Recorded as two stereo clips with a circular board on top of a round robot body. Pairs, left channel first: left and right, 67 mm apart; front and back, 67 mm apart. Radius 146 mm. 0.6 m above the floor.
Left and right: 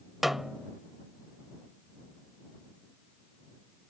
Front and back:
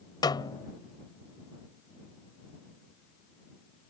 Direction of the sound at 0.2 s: 5° right.